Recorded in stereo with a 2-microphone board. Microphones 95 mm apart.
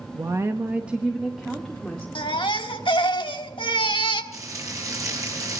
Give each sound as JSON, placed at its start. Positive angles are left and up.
{"t": 0.1, "sound": "a woman speaking", "side_deg": -40, "distance_m": 1.0}
{"t": 2.1, "sound": "a baby crying", "side_deg": 70, "distance_m": 1.3}
{"t": 4.3, "sound": "frying", "side_deg": -40, "distance_m": 6.5}